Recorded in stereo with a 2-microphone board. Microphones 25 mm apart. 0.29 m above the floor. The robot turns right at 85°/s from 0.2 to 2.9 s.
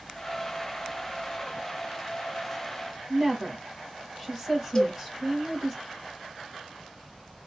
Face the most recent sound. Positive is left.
turn(degrees=30)  # may be behind; listen again after turning